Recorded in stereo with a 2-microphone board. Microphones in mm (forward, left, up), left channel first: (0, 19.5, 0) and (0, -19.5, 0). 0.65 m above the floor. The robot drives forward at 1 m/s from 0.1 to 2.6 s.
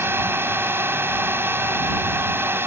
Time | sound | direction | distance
0.0 | a drone | 70° right (ahead or behind) | ?